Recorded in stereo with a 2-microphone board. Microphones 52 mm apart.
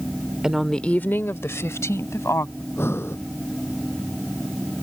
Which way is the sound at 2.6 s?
55° left (ahead or behind).